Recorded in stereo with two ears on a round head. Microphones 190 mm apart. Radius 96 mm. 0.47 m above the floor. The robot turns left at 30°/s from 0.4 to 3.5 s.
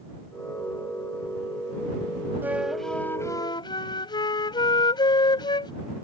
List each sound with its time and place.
2.4 s a flute: 170° right; by 5.7 s 160° left